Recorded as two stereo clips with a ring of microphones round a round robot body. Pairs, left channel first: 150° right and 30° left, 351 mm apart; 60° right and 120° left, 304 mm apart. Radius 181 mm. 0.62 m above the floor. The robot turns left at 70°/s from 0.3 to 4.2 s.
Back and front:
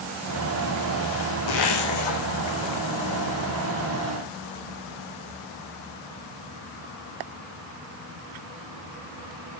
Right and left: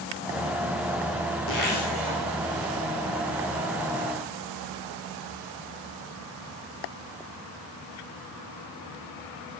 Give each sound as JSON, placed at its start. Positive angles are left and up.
{"t": 1.5, "sound": "a zipper", "azimuth_deg": -115, "distance_m": 6.5}